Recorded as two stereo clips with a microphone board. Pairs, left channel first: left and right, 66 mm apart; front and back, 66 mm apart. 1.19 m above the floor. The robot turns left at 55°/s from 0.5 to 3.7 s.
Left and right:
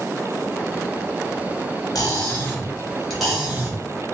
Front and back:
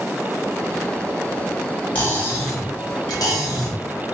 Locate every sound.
1.9 s cutlery clinking: 65° left, 1.5 m; by 4.2 s 30° right, 1.5 m